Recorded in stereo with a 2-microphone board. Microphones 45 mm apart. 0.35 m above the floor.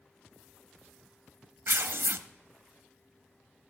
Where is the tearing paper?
65° right (ahead or behind), 0.5 m.